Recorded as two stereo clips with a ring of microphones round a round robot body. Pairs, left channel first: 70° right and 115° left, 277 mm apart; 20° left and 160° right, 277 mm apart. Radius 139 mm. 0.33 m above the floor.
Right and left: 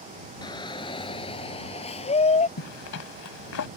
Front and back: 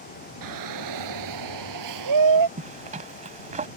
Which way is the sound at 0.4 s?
145° right.